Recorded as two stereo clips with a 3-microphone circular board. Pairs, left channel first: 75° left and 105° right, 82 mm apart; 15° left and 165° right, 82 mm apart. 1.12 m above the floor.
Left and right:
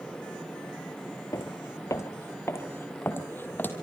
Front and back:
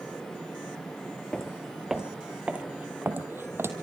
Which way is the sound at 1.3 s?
95° left.